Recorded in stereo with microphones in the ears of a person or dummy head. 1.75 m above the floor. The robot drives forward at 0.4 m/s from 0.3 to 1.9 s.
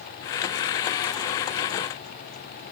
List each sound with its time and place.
Only background noise.